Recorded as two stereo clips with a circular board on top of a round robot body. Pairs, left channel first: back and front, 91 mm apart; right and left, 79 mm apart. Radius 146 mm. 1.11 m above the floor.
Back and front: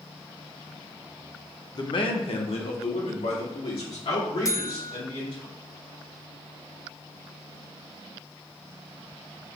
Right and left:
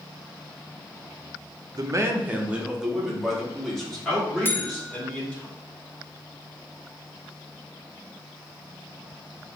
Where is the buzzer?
140° right, 0.8 m.